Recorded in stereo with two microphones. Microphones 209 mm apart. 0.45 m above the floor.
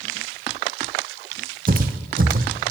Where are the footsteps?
45° right (ahead or behind), 0.9 m.